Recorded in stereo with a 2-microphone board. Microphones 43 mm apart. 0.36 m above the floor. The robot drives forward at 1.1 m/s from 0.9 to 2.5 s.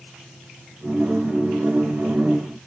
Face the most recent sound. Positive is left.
No sound to turn to.